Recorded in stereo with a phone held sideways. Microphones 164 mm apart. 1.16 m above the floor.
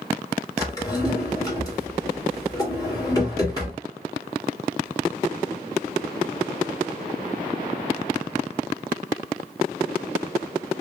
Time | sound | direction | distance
0.6 | a drawer | 20° left (ahead or behind) | 2.5 m